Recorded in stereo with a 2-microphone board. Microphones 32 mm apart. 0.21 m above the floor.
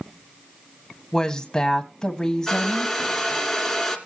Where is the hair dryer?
Centre (ahead or behind), 2 m.